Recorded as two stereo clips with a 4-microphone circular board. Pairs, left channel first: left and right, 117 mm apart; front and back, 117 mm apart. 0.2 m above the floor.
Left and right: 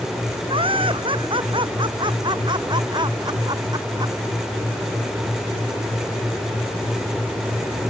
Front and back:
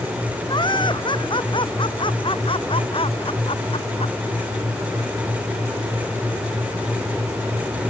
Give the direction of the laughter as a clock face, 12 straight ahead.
2 o'clock.